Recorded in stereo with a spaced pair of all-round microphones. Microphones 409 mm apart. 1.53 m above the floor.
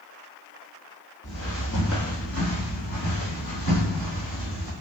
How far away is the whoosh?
I don't hear a whoosh.